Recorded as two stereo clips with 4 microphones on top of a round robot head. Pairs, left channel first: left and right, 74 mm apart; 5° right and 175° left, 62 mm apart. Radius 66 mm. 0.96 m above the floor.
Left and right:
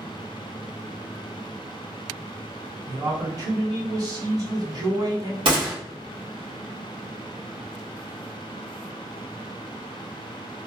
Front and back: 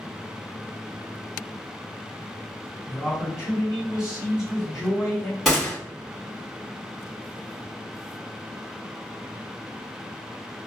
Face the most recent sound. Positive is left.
turn(degrees=-90)